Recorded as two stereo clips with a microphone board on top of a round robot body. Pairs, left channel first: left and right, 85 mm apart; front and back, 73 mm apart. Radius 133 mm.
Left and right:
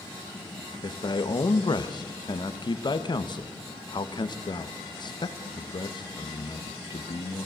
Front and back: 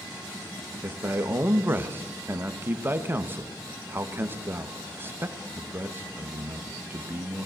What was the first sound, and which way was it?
A man speaking, 120° left.